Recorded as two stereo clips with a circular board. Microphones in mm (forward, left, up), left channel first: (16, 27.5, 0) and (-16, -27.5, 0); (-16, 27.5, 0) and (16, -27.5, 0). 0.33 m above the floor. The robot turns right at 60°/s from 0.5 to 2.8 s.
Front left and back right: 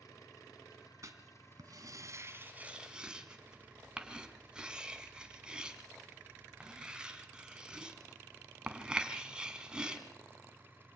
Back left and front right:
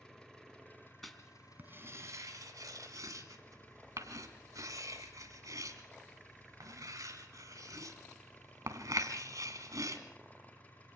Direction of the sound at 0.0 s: 40° left.